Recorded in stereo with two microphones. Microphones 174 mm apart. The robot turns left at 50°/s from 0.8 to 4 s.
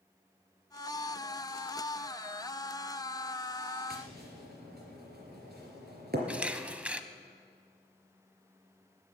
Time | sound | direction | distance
3.9 | tapping | 60° right (ahead or behind) | 3.5 m
6.3 | a camera shutter | 5° right (ahead or behind) | 0.7 m